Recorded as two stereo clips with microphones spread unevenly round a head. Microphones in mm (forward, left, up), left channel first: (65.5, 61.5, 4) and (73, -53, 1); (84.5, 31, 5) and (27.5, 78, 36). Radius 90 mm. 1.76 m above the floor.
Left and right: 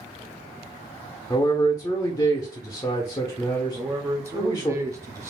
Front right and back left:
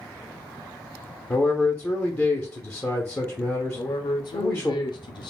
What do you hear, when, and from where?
1.3 s a man speaking: 30° left, 0.6 m
3.8 s a man speaking: 20° right, 0.6 m